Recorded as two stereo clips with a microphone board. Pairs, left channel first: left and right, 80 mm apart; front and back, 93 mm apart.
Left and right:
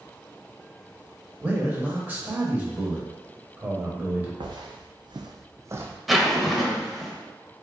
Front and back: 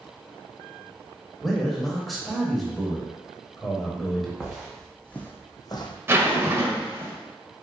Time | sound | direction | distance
1.4 | a man speaking | 90° right | 0.9 m
4.4 | footsteps | 100° right | 0.9 m
6.1 | a zipper | straight behind | 0.6 m